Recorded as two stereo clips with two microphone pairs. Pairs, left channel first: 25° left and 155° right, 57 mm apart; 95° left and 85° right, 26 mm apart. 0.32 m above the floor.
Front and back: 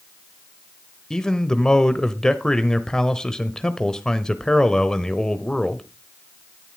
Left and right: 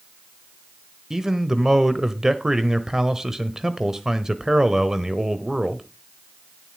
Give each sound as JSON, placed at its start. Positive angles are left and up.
{"t": 1.1, "sound": "a man speaking", "azimuth_deg": -45, "distance_m": 1.2}